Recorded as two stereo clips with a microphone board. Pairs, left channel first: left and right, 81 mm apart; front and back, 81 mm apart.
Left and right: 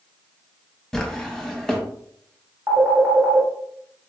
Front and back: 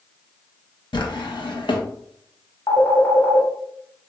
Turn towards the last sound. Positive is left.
turn(degrees=-35)